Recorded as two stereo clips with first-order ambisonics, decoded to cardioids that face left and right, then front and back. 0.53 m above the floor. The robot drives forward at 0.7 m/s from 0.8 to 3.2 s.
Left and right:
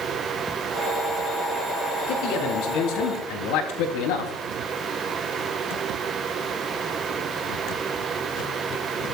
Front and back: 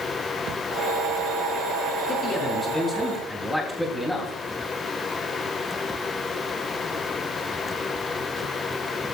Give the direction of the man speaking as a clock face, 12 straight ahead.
10 o'clock.